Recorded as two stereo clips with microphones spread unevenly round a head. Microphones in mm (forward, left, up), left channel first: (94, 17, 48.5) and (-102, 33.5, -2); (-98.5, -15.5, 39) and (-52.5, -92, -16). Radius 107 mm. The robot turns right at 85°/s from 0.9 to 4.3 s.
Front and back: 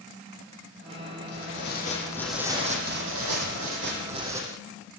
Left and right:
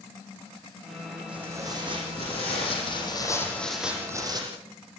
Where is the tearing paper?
5° right, 9 m; by 4.4 s 105° right, 9 m.